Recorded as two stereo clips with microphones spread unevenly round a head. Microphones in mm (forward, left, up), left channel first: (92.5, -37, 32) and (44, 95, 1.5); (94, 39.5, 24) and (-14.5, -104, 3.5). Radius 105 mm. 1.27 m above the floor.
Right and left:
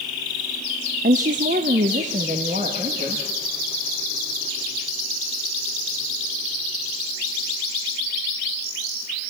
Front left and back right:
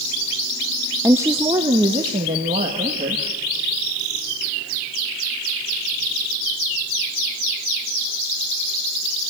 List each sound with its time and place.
1.0 s a woman speaking: 155° left, 0.5 m; by 3.2 s 165° left, 2 m